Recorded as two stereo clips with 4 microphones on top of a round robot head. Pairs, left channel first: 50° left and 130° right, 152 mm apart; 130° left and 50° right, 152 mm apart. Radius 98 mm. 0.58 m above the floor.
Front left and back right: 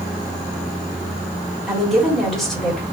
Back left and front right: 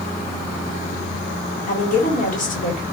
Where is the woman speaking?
135° left, 1.9 m.